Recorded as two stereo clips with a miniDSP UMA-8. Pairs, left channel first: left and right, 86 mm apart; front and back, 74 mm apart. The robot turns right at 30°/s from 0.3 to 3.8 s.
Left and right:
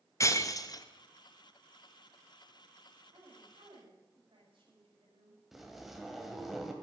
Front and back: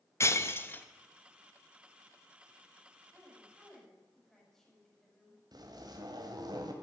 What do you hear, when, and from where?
0.2 s breaking glass: 45° left, 0.8 m; by 0.8 s 60° left, 0.8 m
3.1 s a woman speaking: 105° right, 6 m; by 5.4 s 85° right, 6 m
5.5 s a zipper: 175° right, 2 m